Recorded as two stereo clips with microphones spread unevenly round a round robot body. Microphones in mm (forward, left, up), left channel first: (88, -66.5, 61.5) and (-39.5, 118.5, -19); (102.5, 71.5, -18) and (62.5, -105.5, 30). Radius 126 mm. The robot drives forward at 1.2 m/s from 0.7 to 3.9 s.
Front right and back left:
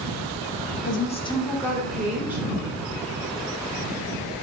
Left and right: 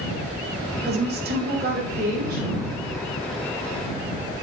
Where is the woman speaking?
110° right, 1.1 m; by 2.4 s 165° right, 2.5 m.